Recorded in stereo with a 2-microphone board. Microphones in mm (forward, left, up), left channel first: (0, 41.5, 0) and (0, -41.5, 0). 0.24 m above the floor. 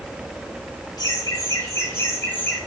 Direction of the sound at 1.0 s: 50° left (ahead or behind).